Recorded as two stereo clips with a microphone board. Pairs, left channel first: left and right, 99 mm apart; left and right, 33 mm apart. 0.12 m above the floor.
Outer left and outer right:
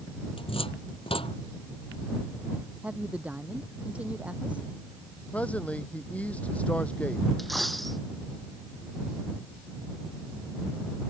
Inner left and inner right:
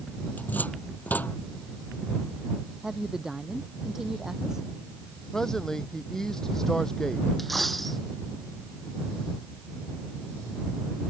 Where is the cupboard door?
70° left (ahead or behind).